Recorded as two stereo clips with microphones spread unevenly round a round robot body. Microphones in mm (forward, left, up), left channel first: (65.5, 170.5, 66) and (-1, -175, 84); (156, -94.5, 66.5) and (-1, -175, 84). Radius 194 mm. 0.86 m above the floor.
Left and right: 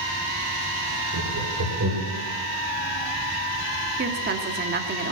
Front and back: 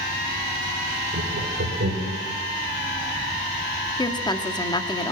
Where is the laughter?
140° right, 3.5 m; by 2.2 s 155° right, 4 m.